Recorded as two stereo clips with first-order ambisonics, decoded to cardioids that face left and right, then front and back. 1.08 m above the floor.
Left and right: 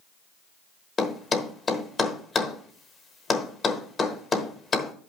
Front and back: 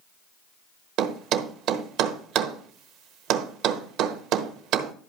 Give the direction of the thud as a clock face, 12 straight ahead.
7 o'clock.